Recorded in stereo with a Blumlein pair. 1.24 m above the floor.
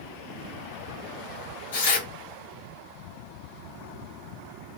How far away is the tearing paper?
About 2.5 m.